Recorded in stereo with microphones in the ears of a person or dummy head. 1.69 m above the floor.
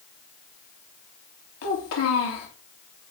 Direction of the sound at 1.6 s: 75° left (ahead or behind).